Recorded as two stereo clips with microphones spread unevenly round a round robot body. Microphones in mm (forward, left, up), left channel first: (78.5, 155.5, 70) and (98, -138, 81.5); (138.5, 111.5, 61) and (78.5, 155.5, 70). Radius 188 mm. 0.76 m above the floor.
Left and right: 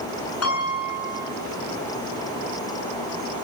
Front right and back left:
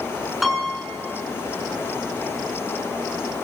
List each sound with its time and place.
0.4 s a piano: 55° left, 9.5 m